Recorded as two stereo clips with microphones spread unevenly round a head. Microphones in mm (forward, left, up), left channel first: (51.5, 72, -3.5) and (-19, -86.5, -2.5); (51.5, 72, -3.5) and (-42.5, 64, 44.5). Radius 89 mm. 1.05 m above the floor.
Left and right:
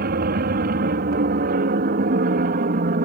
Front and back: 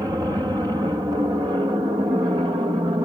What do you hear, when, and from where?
0.0 s an aircraft: 100° right; by 3.1 s 110° right